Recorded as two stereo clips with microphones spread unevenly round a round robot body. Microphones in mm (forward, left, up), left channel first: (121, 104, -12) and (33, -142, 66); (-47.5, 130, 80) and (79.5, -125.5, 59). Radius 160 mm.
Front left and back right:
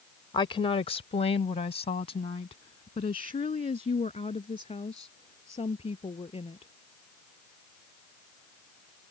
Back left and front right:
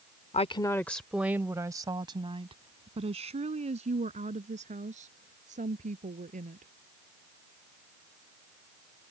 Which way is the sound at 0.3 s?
60° left.